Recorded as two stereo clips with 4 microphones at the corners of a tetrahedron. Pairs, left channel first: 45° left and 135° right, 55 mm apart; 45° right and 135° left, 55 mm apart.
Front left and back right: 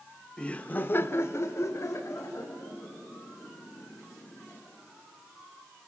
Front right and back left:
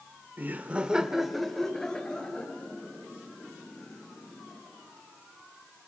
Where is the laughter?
110° left, 1.1 m; by 4.6 s 15° left, 4.5 m.